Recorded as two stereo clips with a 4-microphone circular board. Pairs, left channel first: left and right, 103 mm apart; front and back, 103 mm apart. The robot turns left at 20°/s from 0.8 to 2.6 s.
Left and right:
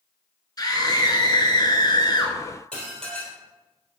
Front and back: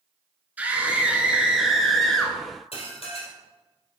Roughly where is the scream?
Behind left.